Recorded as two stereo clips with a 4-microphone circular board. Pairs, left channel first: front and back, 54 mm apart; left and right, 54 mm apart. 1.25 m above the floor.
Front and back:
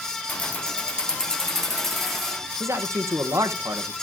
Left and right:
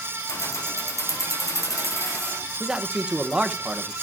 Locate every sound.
0.3 s keys jangling: 60° left, 0.9 m; by 2.4 s 85° left, 2.5 m
2.6 s a man speaking: 160° right, 1.0 m